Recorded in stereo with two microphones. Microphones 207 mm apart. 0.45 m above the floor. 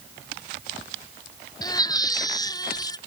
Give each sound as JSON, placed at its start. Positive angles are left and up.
{"t": 1.6, "sound": "a baby crying", "side_deg": 20}